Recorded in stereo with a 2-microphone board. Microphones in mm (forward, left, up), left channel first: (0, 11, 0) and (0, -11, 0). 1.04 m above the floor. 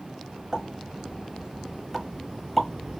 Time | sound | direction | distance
0.5 | a pop | centre (ahead or behind) | 1.2 m